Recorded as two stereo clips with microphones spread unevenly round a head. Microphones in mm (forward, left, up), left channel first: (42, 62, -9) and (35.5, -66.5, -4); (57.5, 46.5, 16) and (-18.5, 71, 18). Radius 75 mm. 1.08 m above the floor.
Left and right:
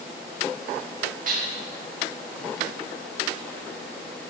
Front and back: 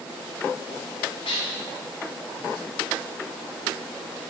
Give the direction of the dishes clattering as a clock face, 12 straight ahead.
3 o'clock.